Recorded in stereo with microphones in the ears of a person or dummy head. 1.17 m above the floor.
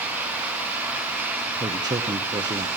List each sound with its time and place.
1.6 s a man speaking: 25° right (ahead or behind), 1.0 m